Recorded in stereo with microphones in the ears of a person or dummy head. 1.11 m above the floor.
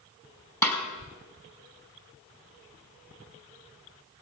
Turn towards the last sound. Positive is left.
turn(degrees=15)  # may be behind; listen again after turning